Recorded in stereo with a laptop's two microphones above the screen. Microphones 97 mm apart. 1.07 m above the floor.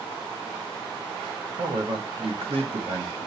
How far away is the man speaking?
About 1.3 m.